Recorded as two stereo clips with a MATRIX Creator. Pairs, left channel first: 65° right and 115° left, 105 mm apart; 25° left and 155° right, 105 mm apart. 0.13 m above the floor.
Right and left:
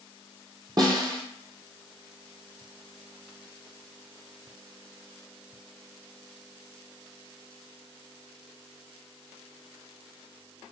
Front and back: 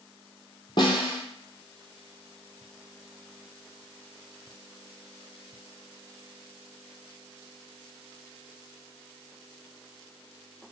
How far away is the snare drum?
About 0.8 m.